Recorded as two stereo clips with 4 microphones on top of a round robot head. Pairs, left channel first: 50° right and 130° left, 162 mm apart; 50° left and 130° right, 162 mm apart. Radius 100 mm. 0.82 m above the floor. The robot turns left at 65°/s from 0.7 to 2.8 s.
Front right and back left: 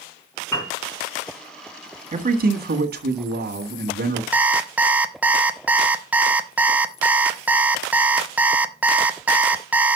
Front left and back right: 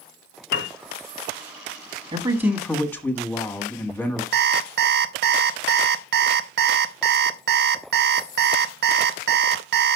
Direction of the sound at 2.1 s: 170° left.